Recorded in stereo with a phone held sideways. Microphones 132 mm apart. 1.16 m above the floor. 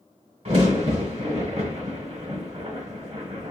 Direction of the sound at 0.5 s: 55° right (ahead or behind).